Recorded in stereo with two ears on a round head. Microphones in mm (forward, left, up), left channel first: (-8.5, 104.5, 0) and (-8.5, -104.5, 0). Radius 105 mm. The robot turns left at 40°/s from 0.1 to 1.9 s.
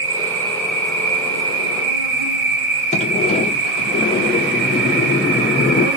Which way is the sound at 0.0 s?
65° right.